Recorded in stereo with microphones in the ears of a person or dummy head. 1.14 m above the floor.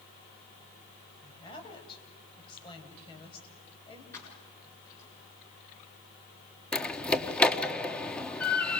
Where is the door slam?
5° left (ahead or behind), 1.3 m.